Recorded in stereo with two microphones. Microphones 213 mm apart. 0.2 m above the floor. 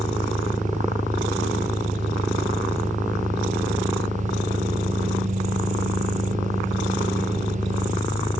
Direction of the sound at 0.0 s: 35° left (ahead or behind).